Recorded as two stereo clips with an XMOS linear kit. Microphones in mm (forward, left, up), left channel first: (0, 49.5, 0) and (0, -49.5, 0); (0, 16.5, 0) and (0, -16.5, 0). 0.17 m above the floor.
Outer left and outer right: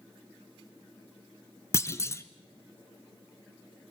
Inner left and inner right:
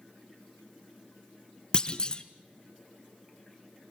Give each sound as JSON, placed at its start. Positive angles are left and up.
{"t": 1.7, "sound": "a clunk", "side_deg": 30, "distance_m": 0.9}